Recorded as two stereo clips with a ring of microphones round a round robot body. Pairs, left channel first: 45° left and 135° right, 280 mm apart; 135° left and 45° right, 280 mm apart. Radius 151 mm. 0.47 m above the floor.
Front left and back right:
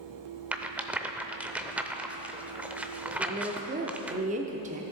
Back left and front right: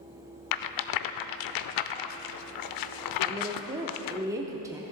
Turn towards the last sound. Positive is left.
turn(degrees=-110)